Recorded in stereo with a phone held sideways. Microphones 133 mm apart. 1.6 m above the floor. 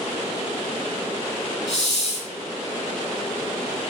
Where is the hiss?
35° right (ahead or behind), 3 m.